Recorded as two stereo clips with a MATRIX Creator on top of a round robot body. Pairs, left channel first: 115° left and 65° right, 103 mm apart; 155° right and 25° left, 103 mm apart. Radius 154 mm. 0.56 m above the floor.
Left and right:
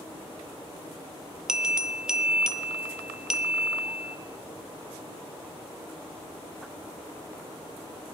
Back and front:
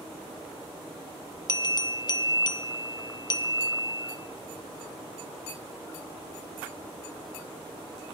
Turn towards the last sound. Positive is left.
turn(degrees=-150)